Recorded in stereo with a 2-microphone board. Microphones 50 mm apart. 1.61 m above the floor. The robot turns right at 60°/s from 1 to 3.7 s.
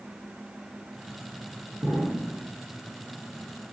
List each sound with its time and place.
1.8 s an explosion: 95° right, 8 m; by 2.5 s 55° right, 8 m